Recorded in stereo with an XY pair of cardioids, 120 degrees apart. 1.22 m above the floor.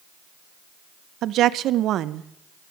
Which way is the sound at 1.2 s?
65° right.